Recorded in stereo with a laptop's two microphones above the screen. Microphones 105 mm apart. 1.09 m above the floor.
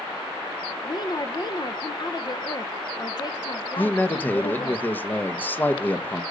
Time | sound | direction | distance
0.8 | a woman speaking | 40° left (ahead or behind) | 0.9 m
3.8 | a man speaking | 20° left (ahead or behind) | 0.8 m